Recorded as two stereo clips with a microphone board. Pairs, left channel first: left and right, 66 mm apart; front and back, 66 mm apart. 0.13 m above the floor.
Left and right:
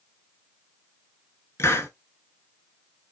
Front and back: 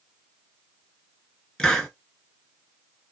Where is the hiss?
75° left, 0.6 m.